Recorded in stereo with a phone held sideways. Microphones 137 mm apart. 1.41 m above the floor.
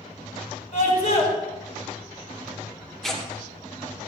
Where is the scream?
45° left (ahead or behind), 4.5 m.